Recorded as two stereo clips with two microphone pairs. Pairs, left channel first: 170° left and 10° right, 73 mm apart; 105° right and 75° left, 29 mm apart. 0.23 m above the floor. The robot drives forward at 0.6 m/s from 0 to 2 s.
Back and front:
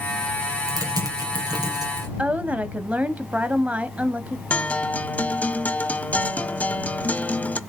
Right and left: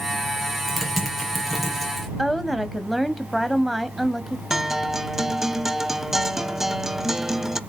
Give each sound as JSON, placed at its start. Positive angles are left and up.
{"t": 0.7, "sound": "typing on a keyboard", "azimuth_deg": -10, "distance_m": 4.5}
{"t": 2.2, "sound": "a woman speaking", "azimuth_deg": 0, "distance_m": 1.0}
{"t": 4.5, "sound": "a guitar", "azimuth_deg": 130, "distance_m": 0.5}